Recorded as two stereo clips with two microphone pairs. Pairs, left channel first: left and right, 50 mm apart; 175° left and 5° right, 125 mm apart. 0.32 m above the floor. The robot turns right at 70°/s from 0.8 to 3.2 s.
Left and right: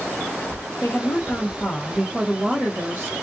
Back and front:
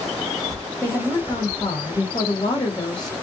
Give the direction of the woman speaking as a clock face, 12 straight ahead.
9 o'clock.